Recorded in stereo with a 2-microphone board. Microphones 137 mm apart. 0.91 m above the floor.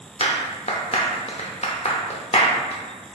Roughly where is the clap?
Left.